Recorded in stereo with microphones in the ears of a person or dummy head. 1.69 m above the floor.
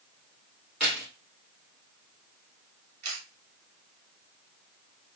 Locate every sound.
0.8 s keys jangling: 10° right (ahead or behind), 2.5 m
3.0 s a camera shutter: 50° right (ahead or behind), 1.5 m